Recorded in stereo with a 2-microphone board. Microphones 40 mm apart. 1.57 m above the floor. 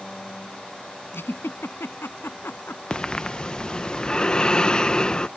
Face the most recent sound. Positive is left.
turn(degrees=20)  # may be behind; listen again after turning